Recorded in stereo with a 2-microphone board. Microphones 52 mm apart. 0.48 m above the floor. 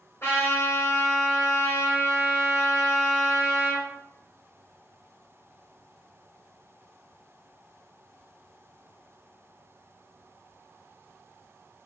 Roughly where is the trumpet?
Left.